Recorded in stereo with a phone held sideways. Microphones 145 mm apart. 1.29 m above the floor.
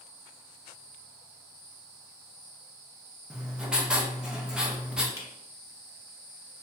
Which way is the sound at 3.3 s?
5° right (ahead or behind).